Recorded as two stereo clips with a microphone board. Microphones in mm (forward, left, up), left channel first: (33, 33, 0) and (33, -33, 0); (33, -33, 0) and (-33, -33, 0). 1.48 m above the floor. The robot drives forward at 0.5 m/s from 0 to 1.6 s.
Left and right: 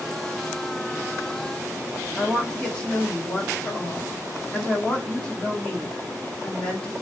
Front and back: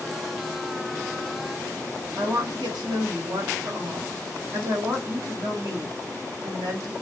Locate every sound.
2.2 s a woman speaking: 165° left, 1.0 m